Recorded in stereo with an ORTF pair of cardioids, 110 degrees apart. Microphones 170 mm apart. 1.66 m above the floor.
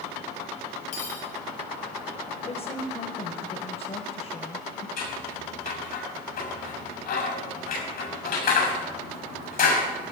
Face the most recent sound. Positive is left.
turn(degrees=65)